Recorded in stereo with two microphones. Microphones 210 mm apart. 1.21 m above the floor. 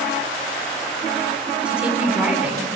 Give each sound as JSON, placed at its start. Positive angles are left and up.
{"t": 1.6, "sound": "a woman speaking", "side_deg": -5, "distance_m": 10.0}